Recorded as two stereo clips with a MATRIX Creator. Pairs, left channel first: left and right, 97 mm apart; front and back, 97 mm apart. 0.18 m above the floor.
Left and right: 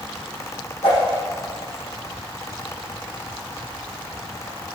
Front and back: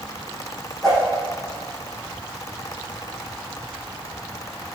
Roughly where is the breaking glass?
No breaking glass in this recording.